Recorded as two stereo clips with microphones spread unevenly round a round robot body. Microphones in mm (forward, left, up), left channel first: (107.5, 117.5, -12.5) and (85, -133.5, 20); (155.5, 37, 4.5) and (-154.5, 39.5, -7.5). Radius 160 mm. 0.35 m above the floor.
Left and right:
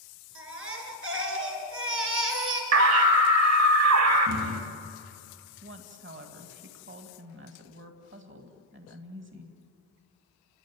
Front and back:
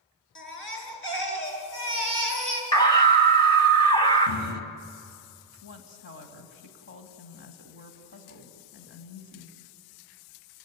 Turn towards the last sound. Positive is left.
turn(degrees=-55)